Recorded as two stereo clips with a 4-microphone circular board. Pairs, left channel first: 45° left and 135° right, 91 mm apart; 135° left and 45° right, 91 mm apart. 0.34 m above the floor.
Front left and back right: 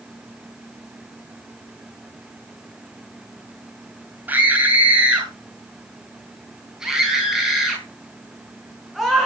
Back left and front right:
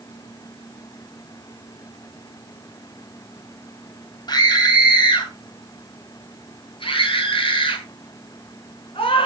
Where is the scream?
160° left, 2.5 m; by 9.3 s 135° left, 5 m.